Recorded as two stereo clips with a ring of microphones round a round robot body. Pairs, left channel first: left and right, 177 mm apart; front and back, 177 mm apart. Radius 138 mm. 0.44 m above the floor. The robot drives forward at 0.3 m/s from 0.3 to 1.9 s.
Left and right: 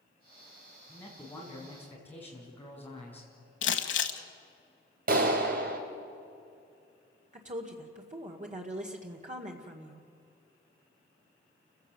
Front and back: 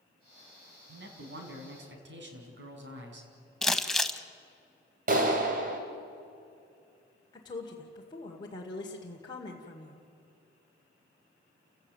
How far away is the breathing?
No breathing in this recording.